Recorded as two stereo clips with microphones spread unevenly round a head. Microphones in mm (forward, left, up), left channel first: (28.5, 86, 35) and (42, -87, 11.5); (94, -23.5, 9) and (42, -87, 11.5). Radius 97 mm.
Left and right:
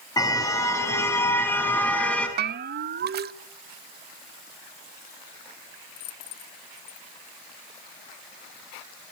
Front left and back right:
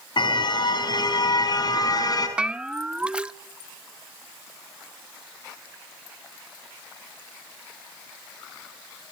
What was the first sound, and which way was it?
A car horn, 25° left.